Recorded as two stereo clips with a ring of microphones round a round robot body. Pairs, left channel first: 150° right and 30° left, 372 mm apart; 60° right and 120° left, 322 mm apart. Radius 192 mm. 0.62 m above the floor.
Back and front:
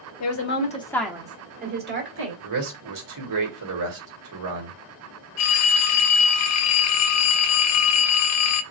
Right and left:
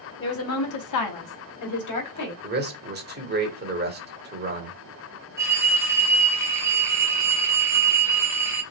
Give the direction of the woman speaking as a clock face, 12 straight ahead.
4 o'clock.